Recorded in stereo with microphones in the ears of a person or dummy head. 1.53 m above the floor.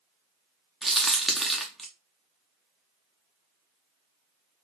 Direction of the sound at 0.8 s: 5° left (ahead or behind).